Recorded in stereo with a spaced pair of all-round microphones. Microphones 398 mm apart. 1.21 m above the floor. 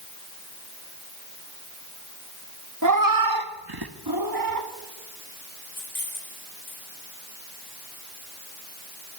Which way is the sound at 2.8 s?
45° right (ahead or behind).